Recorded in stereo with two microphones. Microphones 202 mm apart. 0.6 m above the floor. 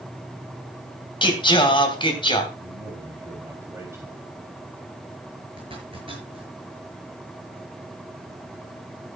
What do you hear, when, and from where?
1.2 s singing: 25° left (ahead or behind), 2 m
2.6 s a man speaking: 15° right (ahead or behind), 3.5 m
5.6 s a zipper: 30° right (ahead or behind), 7 m